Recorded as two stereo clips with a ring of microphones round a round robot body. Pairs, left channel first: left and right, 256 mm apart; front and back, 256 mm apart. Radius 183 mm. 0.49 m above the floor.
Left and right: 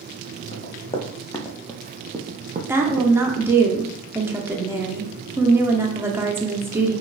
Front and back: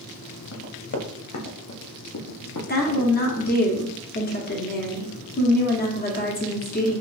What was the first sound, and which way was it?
Running footsteps, 30° left.